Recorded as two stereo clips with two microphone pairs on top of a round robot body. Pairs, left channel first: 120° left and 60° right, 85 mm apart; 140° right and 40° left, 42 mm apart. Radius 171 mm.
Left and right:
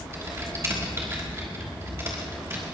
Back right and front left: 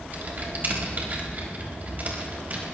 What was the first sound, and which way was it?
Typing on a keyboard, 5° right.